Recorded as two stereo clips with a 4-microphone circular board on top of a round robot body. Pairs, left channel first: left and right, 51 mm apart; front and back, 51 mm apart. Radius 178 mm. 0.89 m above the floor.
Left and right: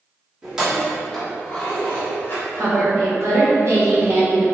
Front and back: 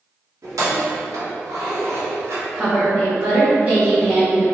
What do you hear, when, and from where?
0.4 s keys jangling: 165° right, 1.2 m; by 2.5 s 140° left, 1.0 m
2.5 s a woman speaking: 120° right, 1.4 m